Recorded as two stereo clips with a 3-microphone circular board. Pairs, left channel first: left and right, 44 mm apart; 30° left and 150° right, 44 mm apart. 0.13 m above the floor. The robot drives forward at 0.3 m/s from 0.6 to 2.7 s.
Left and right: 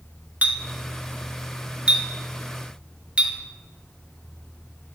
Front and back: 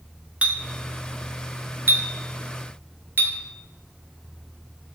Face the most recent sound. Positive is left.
turn(degrees=-150)